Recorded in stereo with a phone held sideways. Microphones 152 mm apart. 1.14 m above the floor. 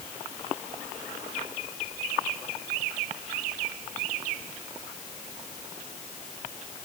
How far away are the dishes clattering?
No dishes clattering in this recording.